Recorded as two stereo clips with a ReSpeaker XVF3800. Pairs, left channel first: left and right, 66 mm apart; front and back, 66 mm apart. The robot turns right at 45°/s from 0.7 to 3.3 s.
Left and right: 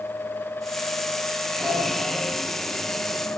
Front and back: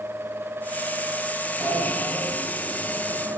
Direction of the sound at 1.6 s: 170° left.